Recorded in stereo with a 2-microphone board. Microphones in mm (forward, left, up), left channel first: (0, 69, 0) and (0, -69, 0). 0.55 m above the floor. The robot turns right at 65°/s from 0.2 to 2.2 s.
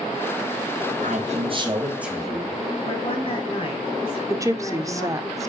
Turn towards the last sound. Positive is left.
turn(degrees=-25)  # may be behind; listen again after turning